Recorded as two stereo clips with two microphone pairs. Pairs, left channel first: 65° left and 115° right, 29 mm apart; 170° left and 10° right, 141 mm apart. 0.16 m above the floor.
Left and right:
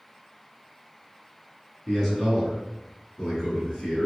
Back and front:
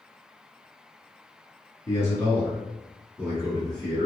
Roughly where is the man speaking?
Behind left.